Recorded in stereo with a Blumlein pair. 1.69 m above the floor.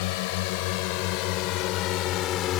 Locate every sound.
0.0 s a drone: 50° left; by 2.6 s 30° left